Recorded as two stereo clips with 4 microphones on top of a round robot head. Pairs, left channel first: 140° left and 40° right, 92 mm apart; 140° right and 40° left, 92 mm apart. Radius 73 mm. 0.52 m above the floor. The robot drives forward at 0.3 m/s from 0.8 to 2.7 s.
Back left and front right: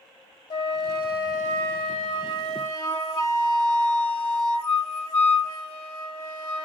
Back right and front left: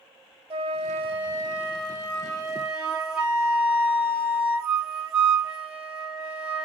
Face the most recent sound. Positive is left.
turn(degrees=125)